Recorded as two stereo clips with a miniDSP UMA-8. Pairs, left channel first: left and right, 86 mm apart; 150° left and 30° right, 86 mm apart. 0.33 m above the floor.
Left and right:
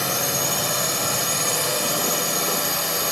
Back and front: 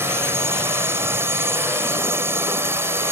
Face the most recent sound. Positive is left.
turn(degrees=0)